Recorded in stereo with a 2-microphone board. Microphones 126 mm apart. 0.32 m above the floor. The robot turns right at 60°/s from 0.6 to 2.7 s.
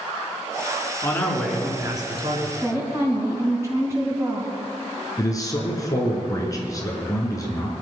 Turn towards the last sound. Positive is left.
turn(degrees=25)  # may be behind; listen again after turning